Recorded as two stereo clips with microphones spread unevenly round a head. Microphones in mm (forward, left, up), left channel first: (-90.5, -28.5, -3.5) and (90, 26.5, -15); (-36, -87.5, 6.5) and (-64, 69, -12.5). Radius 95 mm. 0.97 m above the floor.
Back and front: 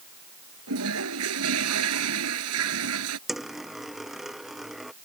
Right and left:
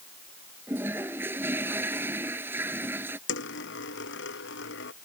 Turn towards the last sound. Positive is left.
turn(degrees=-70)